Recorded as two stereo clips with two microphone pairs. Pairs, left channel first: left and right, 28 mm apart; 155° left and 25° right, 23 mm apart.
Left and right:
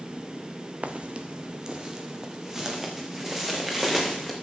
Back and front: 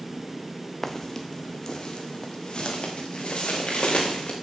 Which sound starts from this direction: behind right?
Footsteps, at 0.8 s.